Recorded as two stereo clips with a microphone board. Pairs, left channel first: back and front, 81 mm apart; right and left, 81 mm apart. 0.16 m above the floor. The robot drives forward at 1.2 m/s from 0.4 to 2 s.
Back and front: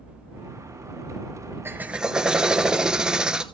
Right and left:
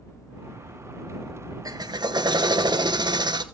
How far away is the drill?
About 1.2 m.